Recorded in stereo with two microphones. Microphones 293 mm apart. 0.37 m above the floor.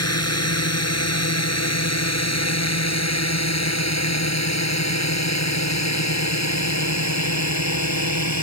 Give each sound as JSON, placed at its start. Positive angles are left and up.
{"t": 0.0, "sound": "a drone", "side_deg": 55}